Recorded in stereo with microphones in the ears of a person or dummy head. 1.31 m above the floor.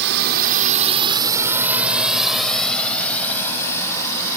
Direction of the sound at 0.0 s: 60° right (ahead or behind).